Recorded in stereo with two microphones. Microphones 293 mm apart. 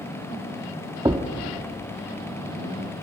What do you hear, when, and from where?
1.1 s a thud: 15° right (ahead or behind), 1.1 m